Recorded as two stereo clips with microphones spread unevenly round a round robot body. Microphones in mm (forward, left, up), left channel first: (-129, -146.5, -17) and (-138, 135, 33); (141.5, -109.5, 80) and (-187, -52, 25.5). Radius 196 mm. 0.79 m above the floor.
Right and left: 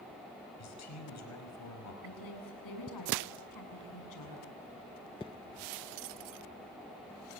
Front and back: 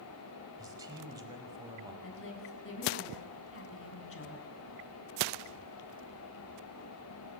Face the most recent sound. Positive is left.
turn(degrees=-60)